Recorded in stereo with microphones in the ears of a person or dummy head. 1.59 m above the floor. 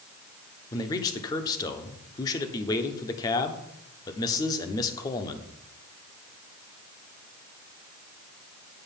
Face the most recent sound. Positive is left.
turn(degrees=20)  # may be behind; listen again after turning